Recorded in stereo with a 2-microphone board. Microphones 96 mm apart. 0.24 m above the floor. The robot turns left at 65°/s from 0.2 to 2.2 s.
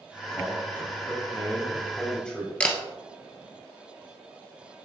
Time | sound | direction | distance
0.3 | a man speaking | 10° left (ahead or behind) | 1.6 m
2.6 | a camera shutter | 15° left (ahead or behind) | 1.2 m